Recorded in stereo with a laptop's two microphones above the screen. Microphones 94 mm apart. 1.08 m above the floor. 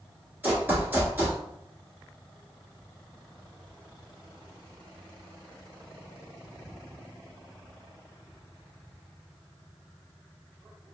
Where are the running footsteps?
20° right (ahead or behind), 1.1 m.